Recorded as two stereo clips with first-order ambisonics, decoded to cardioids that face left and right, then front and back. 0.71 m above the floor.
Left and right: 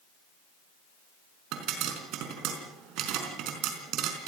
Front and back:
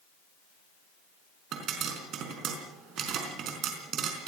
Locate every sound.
1.5 s a pop: 130° right, 4.5 m